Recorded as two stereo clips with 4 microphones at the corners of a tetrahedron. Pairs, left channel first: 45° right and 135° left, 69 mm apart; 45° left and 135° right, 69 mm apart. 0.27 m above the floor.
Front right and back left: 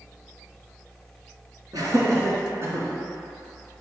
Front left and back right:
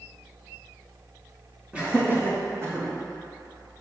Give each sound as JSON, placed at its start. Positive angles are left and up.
{"t": 1.7, "sound": "laughter", "azimuth_deg": 155, "distance_m": 2.5}